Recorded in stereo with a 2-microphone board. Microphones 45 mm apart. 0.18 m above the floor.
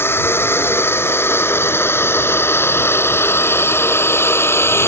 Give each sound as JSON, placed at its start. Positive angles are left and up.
{"t": 0.0, "sound": "a drone", "side_deg": 65}